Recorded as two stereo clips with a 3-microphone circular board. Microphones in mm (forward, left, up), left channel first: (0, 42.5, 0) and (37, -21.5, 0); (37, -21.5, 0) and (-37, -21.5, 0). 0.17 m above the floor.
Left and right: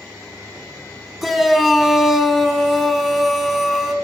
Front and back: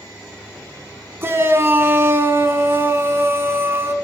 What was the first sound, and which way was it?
A shout, 150° right.